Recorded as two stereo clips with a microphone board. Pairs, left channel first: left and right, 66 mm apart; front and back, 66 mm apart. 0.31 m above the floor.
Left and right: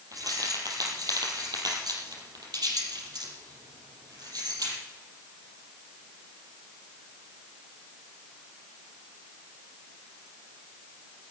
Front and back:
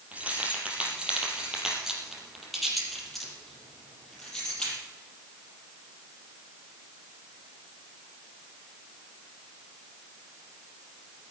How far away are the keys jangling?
About 5.5 m.